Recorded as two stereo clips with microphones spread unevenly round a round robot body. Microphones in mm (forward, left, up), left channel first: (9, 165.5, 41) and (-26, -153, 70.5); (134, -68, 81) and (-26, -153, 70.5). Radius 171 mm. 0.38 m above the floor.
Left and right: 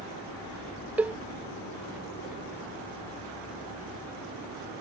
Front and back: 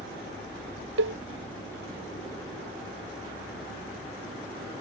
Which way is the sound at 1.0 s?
Straight behind.